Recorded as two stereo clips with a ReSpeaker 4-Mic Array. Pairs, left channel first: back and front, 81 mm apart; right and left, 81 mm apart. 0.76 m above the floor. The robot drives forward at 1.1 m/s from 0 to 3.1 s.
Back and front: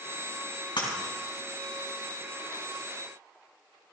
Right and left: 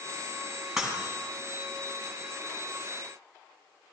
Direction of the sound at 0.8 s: 175° left.